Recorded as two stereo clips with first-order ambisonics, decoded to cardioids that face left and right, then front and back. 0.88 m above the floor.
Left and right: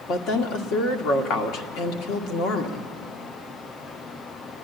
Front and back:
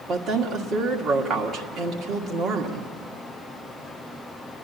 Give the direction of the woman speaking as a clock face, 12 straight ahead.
8 o'clock.